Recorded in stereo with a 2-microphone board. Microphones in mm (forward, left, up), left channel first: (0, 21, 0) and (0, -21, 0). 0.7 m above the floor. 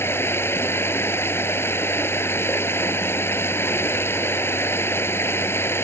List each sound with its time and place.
0.0 s running water: 75° left (ahead or behind)